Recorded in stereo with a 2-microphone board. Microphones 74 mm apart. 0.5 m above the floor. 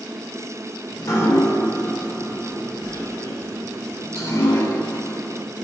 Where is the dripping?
50° left (ahead or behind), 1.1 m.